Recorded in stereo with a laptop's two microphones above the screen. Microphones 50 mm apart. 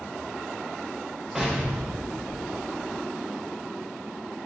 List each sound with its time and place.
1.4 s an explosion: 10° right (ahead or behind), 0.8 m